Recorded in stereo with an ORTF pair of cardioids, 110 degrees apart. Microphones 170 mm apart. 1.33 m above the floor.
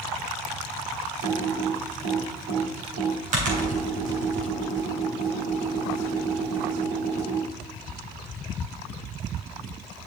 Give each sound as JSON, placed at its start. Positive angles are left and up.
{"t": 1.2, "sound": "typing on a keyboard", "azimuth_deg": -60, "distance_m": 3.5}